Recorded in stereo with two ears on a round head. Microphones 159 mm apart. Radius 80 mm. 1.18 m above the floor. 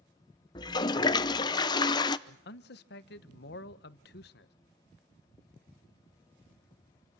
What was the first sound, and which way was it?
A toilet flushing, 25° left (ahead or behind).